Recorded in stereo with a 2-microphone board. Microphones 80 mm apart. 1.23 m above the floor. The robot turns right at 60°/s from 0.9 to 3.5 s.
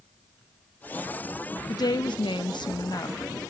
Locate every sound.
1.7 s a woman speaking: 55° left, 0.8 m; by 3.5 s 160° left, 0.8 m